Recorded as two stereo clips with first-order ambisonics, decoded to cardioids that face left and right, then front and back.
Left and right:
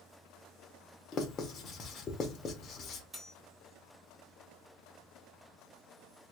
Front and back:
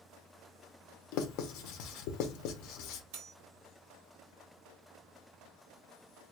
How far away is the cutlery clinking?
About 1.2 m.